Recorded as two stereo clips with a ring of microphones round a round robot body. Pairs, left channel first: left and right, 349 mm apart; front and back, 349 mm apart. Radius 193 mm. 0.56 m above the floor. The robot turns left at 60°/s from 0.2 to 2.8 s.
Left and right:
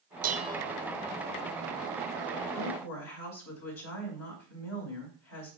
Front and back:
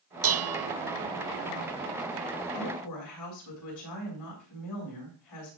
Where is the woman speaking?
60° left, 6.5 m; by 5.5 s 45° left, 6.5 m.